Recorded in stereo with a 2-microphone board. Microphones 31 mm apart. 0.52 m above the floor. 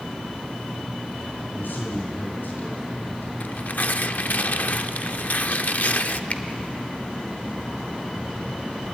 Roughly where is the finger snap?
Left.